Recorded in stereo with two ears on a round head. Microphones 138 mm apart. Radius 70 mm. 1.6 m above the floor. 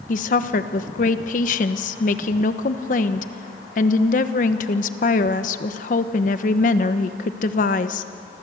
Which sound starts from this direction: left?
A woman speaking, at 0.1 s.